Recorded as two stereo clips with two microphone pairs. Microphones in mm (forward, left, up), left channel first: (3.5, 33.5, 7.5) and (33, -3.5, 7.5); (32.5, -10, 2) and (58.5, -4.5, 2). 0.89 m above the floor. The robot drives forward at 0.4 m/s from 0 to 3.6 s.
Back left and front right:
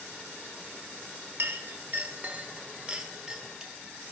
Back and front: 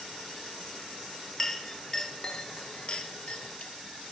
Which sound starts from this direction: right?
A clink, at 1.4 s.